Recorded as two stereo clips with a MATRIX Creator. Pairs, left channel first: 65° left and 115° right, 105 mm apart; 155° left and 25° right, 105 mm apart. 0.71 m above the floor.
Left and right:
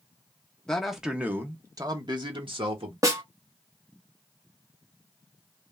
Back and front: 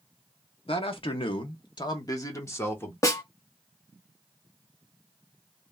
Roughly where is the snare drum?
Behind right.